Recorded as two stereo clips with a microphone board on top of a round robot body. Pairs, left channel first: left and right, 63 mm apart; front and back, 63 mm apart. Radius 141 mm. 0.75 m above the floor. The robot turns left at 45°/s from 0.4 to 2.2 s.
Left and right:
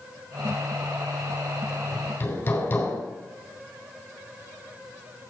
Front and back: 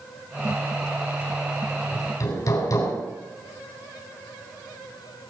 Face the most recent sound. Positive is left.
turn(degrees=30)